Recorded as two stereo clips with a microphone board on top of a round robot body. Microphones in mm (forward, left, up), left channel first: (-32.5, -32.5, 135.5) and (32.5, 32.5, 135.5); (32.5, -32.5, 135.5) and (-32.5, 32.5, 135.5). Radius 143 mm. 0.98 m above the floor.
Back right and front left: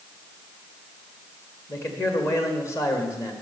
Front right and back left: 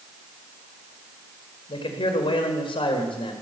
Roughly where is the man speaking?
Right.